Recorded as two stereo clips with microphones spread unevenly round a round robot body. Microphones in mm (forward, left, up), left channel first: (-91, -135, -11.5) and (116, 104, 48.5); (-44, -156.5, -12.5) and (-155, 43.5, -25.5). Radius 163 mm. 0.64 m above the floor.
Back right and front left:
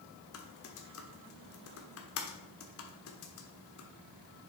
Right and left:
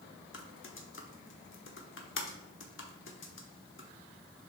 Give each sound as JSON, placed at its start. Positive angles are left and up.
{"t": 0.3, "sound": "typing on a keyboard", "azimuth_deg": -95, "distance_m": 1.3}